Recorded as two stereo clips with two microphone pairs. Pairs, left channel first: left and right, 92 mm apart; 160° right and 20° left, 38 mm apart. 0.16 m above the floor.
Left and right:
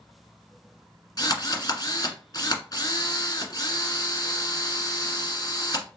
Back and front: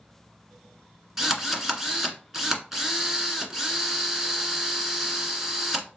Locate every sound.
1.2 s a drill: 90° left, 1.5 m